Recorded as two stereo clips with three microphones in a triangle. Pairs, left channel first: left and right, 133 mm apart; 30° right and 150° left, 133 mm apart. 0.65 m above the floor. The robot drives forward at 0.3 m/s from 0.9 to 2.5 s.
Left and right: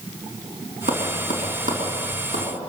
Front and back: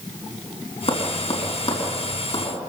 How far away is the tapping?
About 5 m.